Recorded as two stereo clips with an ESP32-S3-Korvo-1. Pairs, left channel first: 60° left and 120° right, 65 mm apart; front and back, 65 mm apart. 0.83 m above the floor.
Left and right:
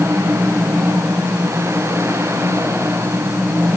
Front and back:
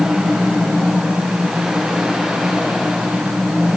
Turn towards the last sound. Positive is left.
No sound to turn to.